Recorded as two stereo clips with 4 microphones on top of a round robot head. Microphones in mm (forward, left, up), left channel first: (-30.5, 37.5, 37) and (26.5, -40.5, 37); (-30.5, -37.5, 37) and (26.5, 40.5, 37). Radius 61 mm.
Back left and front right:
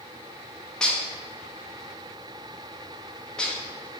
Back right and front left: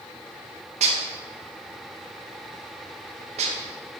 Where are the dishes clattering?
45° left, 0.9 m.